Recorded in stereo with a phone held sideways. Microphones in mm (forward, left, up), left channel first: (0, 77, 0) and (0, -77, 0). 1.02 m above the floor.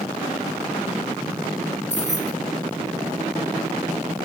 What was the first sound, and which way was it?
Keys jangling, 50° left (ahead or behind).